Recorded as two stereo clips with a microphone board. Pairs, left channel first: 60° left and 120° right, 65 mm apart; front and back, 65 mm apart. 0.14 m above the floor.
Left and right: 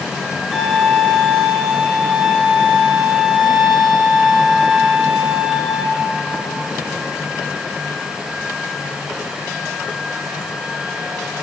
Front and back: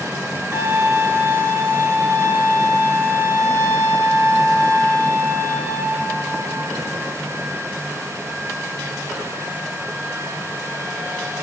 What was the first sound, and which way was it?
A violin, 155° left.